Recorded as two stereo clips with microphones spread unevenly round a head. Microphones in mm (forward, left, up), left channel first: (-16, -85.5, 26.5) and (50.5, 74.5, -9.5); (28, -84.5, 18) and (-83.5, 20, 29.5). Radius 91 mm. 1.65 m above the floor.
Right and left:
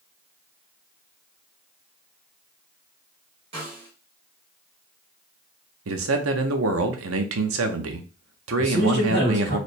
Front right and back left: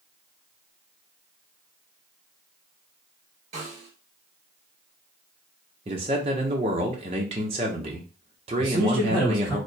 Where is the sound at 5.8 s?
80° left, 0.7 m.